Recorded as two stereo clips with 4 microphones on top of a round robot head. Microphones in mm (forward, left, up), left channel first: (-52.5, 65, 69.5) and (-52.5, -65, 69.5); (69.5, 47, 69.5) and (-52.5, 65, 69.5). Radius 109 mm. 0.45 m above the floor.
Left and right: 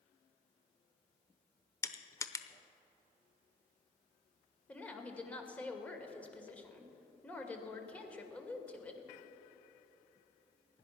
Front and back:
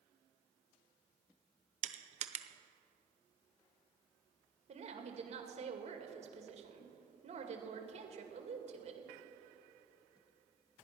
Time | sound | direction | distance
1.8 | crushing | 155° left | 0.9 m
4.7 | a woman speaking | 170° left | 2 m